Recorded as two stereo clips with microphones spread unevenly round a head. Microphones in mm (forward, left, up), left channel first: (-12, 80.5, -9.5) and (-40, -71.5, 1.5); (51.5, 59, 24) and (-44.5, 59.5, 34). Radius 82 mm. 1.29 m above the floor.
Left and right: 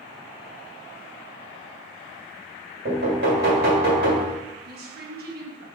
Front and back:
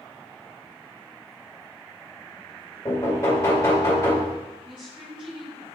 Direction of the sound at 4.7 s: 125° right.